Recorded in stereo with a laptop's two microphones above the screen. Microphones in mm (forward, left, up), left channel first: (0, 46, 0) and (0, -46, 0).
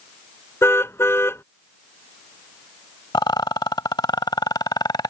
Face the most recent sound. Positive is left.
turn(degrees=55)  # may be behind; listen again after turning